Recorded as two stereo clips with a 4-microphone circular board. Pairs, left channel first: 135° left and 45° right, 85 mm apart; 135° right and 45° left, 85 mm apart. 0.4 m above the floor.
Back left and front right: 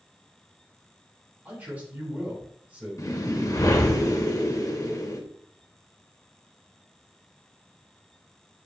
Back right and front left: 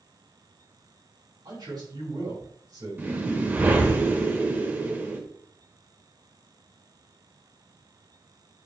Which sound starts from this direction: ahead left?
A man speaking, at 1.4 s.